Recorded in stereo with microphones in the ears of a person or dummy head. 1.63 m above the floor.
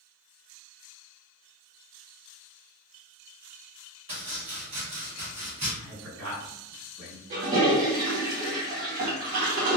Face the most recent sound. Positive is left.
turn(degrees=-35)  # may be behind; listen again after turning